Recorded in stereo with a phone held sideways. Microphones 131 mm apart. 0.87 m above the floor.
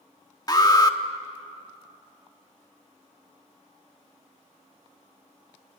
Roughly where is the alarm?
Left.